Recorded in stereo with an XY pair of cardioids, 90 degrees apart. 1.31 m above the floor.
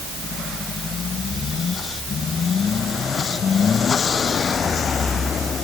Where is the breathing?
No breathing in this recording.